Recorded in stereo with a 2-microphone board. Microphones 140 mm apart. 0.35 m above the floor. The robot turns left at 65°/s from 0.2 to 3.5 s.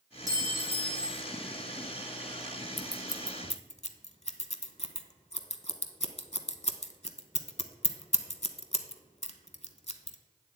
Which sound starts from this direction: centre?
Scissors, at 2.8 s.